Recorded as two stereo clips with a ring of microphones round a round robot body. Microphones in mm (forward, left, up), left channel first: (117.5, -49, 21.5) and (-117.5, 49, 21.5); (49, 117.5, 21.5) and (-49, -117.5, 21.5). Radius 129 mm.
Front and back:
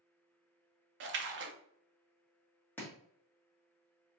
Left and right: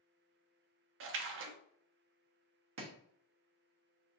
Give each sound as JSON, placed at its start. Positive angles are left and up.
{"t": 1.0, "sound": "a splash", "azimuth_deg": -155, "distance_m": 0.5}
{"t": 2.8, "sound": "chopping", "azimuth_deg": -105, "distance_m": 1.3}